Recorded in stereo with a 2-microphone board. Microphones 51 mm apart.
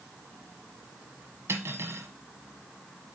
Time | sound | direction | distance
1.5 | cutlery clinking | 60° right (ahead or behind) | 1.1 m